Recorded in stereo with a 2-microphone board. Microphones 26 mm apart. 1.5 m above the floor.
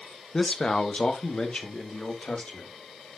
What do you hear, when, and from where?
0.3 s a man speaking: 25° left (ahead or behind), 1.0 m; by 2.7 s 50° left (ahead or behind), 3 m